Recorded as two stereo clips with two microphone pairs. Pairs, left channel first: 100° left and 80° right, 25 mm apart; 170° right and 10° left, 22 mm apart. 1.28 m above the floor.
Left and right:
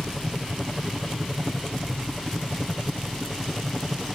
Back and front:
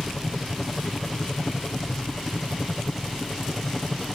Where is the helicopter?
Straight behind; by 4.2 s 160° right.